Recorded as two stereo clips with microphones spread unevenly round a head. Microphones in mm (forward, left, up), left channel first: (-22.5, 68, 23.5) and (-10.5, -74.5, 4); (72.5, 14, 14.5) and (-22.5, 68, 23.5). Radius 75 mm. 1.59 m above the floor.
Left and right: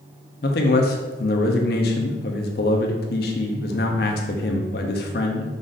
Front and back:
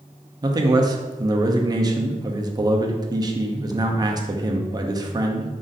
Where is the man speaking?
100° left, 0.7 m.